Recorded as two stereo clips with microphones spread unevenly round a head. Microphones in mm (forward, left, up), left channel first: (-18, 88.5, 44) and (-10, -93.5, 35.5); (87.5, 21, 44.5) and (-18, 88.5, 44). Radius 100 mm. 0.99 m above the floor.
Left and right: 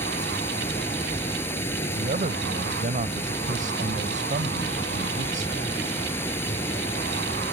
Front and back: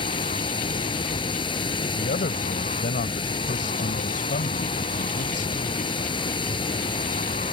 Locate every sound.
0.0 s running water: 15° left
1.9 s a man speaking: 35° right